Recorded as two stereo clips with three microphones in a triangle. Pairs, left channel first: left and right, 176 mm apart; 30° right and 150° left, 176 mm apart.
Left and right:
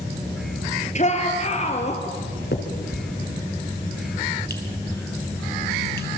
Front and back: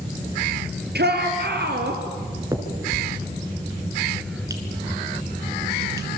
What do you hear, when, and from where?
0.9 s a shout: 135° left, 4 m; by 2.0 s 140° left, 3.5 m
2.5 s a finger snap: 80° left, 3 m